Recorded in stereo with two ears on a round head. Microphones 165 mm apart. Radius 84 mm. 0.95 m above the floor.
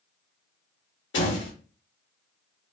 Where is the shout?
No shout in this recording.